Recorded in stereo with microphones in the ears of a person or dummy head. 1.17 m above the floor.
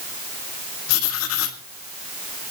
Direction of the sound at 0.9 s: 85° left.